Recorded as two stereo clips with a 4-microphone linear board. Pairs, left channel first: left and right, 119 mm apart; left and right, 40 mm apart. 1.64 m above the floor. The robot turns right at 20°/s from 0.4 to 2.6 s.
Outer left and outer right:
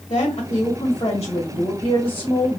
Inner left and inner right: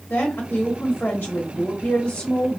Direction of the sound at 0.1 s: 125° left.